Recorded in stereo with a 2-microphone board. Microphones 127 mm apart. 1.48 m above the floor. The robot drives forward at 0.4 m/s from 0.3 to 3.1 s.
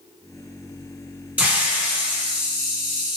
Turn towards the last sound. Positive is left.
turn(degrees=-5)  # may be behind; listen again after turning